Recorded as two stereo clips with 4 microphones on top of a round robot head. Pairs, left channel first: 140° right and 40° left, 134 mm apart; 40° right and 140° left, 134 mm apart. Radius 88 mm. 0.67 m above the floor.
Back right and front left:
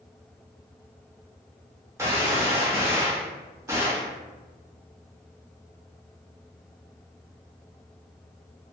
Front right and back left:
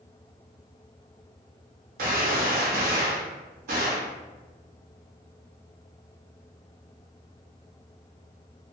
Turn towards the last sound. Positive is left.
turn(degrees=110)